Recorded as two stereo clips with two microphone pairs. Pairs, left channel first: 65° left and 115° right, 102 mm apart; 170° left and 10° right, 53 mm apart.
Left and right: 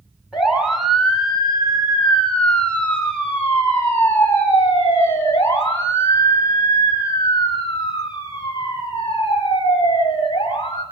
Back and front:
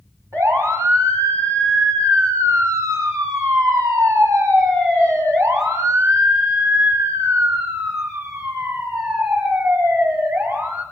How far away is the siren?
About 5 m.